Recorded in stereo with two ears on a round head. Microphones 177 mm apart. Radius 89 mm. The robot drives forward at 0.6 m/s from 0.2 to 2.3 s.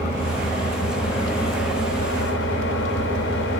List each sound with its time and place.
0.0 s an engine running: 35° left (ahead or behind), 2.5 m; by 3.6 s 60° left (ahead or behind), 1.5 m